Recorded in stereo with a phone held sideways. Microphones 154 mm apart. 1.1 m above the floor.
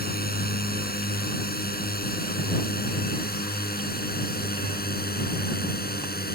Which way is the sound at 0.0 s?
80° left.